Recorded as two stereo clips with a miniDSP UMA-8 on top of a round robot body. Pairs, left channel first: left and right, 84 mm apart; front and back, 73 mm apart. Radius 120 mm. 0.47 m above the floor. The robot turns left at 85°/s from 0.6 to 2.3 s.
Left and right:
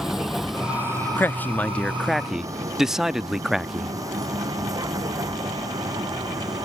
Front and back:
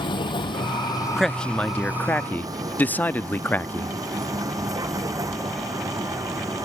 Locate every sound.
0.0 s a vehicle: 5° right; by 6.7 s 135° right
1.2 s a man speaking: 85° left; by 3.9 s 10° right